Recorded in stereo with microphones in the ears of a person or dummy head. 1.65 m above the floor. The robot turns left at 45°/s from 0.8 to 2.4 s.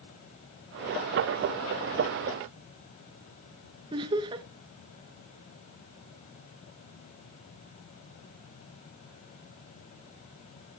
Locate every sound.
3.9 s laughter: 25° right (ahead or behind), 0.5 m